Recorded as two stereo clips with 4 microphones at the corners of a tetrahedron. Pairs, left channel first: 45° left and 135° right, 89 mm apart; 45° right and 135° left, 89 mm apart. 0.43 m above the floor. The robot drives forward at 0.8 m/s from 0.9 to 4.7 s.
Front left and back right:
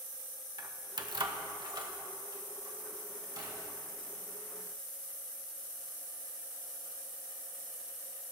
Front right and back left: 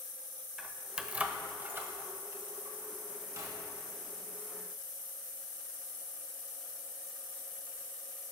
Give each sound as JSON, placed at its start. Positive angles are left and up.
{"t": 0.6, "sound": "keys jangling", "azimuth_deg": -145, "distance_m": 0.7}